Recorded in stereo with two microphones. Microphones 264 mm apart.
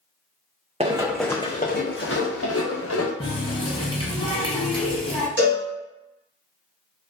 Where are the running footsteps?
25° right (ahead or behind), 0.5 m; by 3.1 s 75° left (ahead or behind), 1.3 m.